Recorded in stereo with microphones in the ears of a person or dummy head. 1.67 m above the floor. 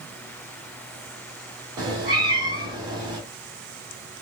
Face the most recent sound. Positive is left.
turn(degrees=-20)  # may be behind; listen again after turning